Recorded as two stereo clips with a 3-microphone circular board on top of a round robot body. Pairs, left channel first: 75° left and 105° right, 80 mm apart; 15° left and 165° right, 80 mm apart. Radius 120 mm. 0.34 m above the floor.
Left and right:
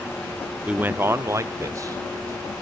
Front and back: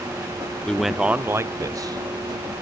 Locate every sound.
0.7 s a man speaking: 50° right, 0.9 m; by 2.5 s 150° right, 1.8 m